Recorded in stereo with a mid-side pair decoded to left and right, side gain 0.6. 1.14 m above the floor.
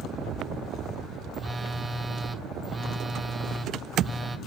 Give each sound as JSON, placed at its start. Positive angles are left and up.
{"t": 1.3, "sound": "a phone buzzing", "azimuth_deg": -20, "distance_m": 1.0}